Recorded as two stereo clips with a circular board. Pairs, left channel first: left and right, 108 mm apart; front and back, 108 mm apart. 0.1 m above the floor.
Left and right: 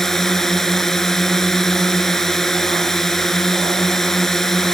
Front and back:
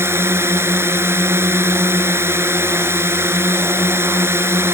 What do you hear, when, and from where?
0.0 s a drone: 170° left